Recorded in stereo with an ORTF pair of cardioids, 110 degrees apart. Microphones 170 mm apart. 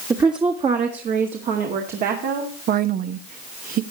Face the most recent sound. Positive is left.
turn(degrees=-60)